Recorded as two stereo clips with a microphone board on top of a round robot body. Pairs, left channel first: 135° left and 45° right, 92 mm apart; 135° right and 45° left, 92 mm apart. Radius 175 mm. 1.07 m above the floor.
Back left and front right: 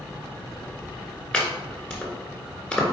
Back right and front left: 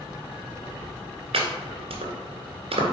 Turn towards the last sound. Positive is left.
turn(degrees=60)